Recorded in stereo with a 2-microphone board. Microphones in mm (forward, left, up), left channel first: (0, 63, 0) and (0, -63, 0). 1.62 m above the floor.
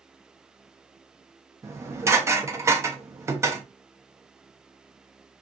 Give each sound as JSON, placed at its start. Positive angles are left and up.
{"t": 1.6, "sound": "dishes clattering", "side_deg": -20, "distance_m": 0.6}